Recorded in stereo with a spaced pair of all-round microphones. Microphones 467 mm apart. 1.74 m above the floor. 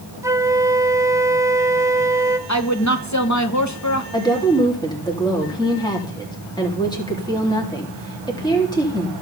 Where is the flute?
5° right (ahead or behind), 0.9 m.